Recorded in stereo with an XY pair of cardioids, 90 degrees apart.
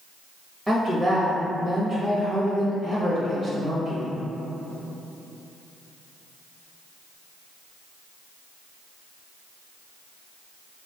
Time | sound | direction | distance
0.7 | a woman speaking | 25° right | 0.9 m